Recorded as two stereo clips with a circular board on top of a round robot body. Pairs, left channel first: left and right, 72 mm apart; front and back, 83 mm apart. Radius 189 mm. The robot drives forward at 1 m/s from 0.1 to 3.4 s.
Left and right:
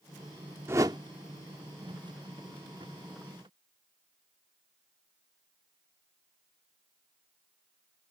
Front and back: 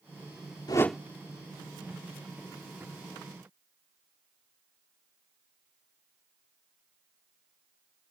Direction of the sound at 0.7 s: 40° right.